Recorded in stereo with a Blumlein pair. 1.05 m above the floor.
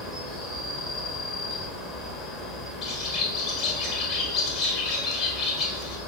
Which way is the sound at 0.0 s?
10° left.